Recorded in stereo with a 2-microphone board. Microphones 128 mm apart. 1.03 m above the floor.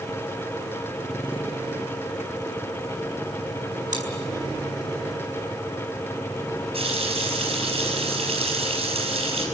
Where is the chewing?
85° right, 5 m.